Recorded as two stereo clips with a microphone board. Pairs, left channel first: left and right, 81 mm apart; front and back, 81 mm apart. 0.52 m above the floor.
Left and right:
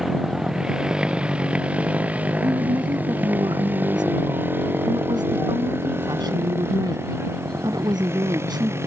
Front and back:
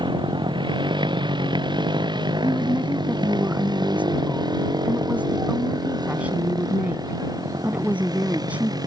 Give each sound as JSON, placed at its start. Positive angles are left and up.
{"t": 0.0, "sound": "a motorcycle", "azimuth_deg": -175}
{"t": 2.4, "sound": "a woman speaking", "azimuth_deg": -110}